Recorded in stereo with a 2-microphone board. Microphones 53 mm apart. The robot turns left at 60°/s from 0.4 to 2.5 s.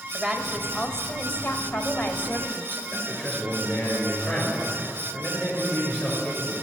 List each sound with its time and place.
0.1 s a woman speaking: 175° left, 1.6 m; by 2.8 s 45° left, 1.6 m
2.9 s a man speaking: 10° left (ahead or behind), 6 m